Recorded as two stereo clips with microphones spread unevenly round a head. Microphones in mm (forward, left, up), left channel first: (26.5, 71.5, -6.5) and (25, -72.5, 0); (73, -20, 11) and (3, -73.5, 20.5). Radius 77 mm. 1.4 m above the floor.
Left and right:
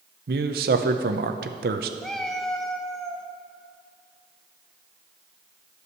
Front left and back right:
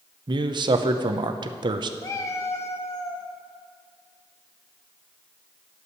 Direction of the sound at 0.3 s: 115° right.